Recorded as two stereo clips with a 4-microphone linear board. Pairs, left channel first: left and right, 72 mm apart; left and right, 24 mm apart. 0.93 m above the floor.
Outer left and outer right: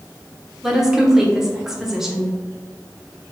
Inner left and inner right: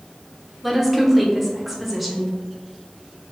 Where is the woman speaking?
5° right (ahead or behind), 0.7 m.